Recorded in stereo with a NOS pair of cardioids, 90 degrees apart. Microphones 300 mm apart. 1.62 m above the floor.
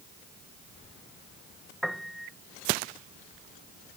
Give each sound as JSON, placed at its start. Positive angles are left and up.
{"t": 1.8, "sound": "a piano", "azimuth_deg": 0}